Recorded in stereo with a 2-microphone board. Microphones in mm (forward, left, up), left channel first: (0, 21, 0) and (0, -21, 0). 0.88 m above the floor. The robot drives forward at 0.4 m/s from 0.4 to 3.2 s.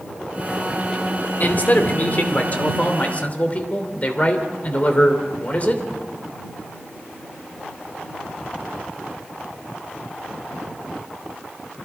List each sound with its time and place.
1.4 s a man speaking: 45° left (ahead or behind), 2.5 m; by 5.8 s 35° left (ahead or behind), 3 m